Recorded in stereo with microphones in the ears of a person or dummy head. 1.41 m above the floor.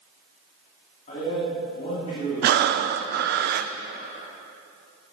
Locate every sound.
1.1 s a man speaking: 40° left (ahead or behind), 3 m
2.4 s breathing: 60° right (ahead or behind), 0.6 m